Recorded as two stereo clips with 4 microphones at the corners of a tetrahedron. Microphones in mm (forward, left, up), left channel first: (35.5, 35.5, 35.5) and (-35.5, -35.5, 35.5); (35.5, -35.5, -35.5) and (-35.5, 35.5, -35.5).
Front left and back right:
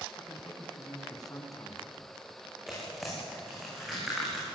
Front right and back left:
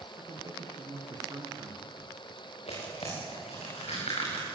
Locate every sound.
0.2 s a man speaking: 90° left, 3 m
2.7 s tearing paper: 45° right, 9 m